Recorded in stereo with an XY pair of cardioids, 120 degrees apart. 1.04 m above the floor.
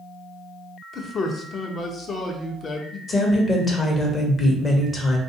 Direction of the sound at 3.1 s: 35° left.